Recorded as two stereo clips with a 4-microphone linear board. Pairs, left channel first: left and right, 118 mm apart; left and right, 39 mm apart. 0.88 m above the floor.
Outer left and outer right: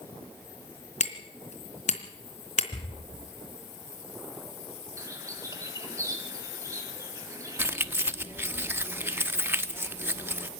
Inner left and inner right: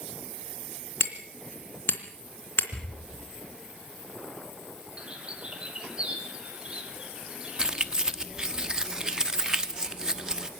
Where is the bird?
25° right (ahead or behind), 3 m.